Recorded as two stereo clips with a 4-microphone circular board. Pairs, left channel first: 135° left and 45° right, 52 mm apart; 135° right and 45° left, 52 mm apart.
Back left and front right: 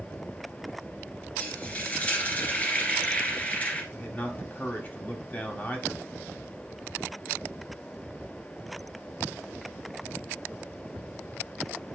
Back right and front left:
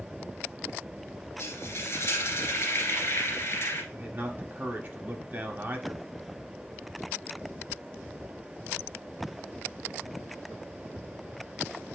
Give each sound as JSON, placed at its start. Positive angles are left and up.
{"t": 1.4, "sound": "frying", "azimuth_deg": -165, "distance_m": 1.7}
{"t": 3.9, "sound": "a man speaking", "azimuth_deg": 90, "distance_m": 1.5}